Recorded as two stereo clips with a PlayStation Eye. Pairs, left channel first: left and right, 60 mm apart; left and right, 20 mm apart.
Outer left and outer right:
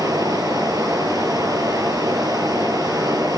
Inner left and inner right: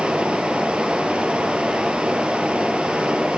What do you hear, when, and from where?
0.0 s running water: 85° right, 6.5 m